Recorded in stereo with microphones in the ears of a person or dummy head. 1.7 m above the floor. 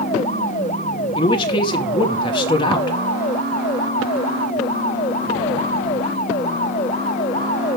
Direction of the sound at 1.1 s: 20° left (ahead or behind).